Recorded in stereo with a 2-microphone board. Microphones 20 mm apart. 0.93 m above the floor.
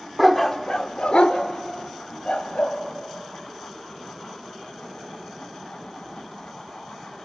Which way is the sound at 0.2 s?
5° right (ahead or behind).